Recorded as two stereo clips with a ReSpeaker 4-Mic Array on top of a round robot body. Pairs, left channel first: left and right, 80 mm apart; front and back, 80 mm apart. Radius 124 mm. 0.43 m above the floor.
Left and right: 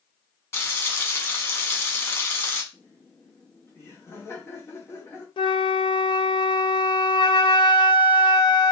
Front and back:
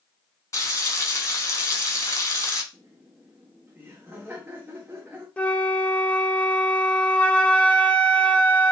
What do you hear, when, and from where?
0.5 s frying: 40° left, 1.6 m
2.7 s laughter: 130° left, 1.3 m
5.4 s a flute: 75° left, 0.6 m